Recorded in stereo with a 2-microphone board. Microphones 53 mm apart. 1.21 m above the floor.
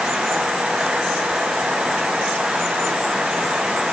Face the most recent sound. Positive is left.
No sound to turn to.